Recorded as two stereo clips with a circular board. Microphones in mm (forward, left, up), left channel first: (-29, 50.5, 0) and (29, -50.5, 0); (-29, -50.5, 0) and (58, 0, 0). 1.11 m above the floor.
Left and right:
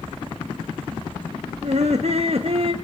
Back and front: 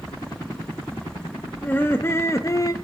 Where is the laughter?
80° right, 1.6 m; by 2.7 s 100° right, 0.9 m.